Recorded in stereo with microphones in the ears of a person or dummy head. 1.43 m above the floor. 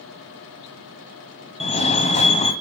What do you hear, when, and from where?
1.6 s a fire alarm: 25° left (ahead or behind), 1.2 m